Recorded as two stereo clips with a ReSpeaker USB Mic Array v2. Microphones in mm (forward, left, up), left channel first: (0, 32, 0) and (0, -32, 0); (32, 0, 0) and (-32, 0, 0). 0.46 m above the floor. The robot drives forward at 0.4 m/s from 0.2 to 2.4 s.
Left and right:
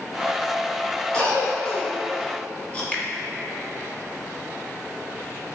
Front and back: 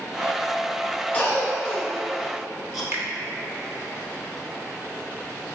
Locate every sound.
1.1 s a cough: 40° left, 1.2 m; by 2.8 s 90° left, 1.1 m
2.9 s a finger snap: 150° left, 0.7 m